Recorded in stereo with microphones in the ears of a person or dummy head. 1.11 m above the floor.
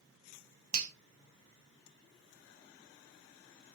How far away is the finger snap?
About 0.5 m.